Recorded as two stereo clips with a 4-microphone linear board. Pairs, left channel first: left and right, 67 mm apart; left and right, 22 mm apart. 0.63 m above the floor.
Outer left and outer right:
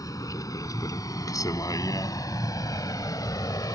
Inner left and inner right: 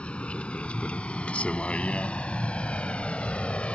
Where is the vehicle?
65° left (ahead or behind); by 3.8 s 75° left (ahead or behind).